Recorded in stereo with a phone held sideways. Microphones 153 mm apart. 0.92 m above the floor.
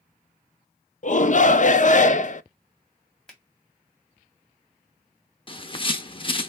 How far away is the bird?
About 0.6 m.